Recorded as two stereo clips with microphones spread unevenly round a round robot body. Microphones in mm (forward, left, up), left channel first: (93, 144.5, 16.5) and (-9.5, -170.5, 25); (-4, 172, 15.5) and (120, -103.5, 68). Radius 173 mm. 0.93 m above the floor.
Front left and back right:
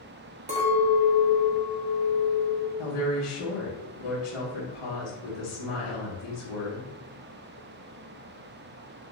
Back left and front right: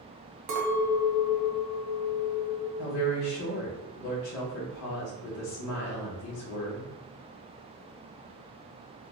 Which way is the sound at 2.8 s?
85° left.